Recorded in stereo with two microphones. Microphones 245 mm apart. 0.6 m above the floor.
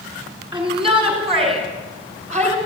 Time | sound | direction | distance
0.5 | a shout | 20° right (ahead or behind) | 7 m